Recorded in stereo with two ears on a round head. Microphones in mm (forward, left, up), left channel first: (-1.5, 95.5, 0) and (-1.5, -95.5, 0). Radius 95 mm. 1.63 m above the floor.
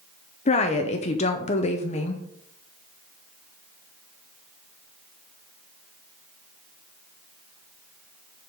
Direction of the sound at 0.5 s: 30° left (ahead or behind).